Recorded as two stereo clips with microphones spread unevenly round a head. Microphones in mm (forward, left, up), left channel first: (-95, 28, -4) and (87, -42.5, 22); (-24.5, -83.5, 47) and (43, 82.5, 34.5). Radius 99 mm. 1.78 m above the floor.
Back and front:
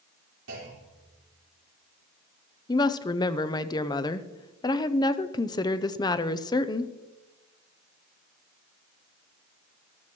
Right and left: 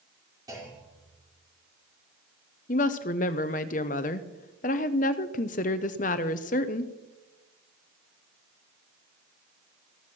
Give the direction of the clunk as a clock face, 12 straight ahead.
12 o'clock.